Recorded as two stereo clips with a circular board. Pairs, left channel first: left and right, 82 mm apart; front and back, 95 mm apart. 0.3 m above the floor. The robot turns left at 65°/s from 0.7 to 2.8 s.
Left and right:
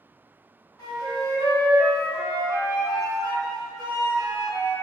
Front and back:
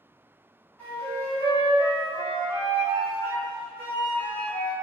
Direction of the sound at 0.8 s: 70° left.